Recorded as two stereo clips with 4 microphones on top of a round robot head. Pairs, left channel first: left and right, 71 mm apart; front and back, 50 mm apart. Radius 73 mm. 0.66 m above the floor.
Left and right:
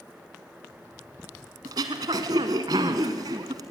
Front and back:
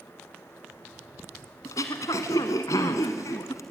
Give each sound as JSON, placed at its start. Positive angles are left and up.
{"t": 1.6, "sound": "throat clearing", "azimuth_deg": -45, "distance_m": 1.2}